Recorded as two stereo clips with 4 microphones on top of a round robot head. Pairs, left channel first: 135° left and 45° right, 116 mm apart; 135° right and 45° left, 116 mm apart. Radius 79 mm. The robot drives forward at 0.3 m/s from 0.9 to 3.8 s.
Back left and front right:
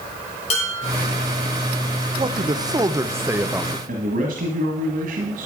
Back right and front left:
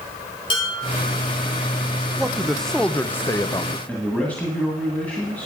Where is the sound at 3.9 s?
55° right, 1.7 m.